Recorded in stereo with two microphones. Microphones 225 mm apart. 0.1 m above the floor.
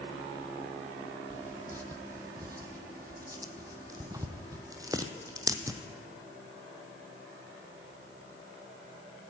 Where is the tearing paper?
15° right (ahead or behind), 0.7 m.